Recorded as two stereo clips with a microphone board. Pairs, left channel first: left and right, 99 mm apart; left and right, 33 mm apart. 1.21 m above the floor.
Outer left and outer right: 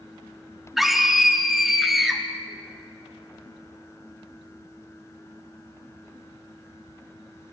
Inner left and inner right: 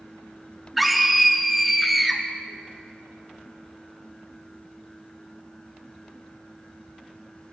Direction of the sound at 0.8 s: Centre (ahead or behind).